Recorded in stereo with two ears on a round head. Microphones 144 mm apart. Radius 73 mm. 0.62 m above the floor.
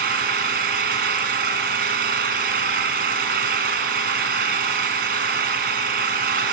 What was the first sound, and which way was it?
An engine running, 60° right (ahead or behind).